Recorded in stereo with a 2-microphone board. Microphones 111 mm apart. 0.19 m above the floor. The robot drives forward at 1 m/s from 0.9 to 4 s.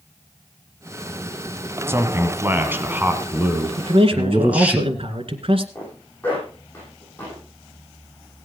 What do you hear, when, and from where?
1.9 s a man speaking: 25° right (ahead or behind), 1.5 m; by 4.8 s 15° right (ahead or behind), 3 m
3.8 s a man speaking: 60° right (ahead or behind), 2.0 m
5.8 s a zipper: 20° left (ahead or behind), 9 m